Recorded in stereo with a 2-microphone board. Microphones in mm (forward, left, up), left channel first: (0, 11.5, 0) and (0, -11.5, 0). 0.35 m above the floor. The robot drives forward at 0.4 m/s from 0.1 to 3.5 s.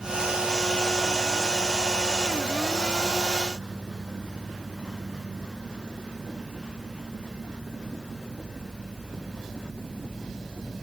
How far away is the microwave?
No microwave in this recording.